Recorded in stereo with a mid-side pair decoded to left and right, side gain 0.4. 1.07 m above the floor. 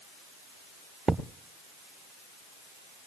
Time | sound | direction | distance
1.1 | a thud | 40° right | 1.0 m